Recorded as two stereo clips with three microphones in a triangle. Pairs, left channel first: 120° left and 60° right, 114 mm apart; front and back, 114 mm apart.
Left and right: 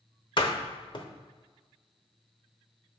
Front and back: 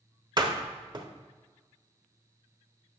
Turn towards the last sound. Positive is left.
turn(degrees=145)